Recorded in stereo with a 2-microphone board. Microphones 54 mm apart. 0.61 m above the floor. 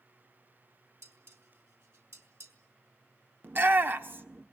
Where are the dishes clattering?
65° right (ahead or behind), 3.5 m.